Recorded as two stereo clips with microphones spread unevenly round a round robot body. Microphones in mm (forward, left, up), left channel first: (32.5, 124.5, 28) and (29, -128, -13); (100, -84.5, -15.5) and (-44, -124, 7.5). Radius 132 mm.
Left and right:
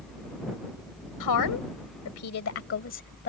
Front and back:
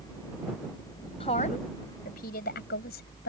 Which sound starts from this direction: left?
A woman speaking, at 1.2 s.